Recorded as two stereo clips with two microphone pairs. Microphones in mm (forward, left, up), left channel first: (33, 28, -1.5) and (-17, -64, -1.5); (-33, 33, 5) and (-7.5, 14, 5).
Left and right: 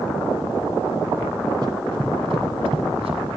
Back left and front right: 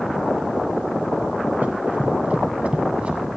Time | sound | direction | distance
1.6 | running footsteps | 75° right | 1.1 m